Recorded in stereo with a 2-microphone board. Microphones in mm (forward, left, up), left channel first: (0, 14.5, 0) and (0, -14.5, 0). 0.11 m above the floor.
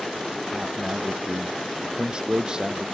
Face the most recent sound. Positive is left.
turn(degrees=-25)  # may be behind; listen again after turning